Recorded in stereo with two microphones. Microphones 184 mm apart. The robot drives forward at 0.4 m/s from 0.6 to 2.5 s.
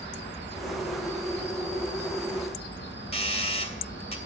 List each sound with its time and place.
0.0 s an insect: 70° left (ahead or behind), 6 m
3.1 s a doorbell: 30° left (ahead or behind), 2.5 m